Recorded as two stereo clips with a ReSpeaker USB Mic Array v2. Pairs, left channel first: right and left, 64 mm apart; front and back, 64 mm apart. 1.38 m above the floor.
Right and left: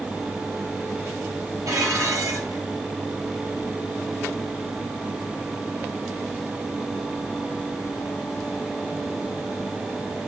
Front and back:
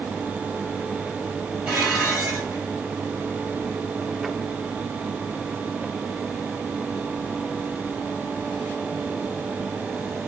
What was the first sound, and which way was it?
Dishes clattering, 110° left.